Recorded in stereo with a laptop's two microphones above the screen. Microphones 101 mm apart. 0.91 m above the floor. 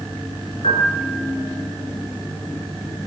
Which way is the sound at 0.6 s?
80° left.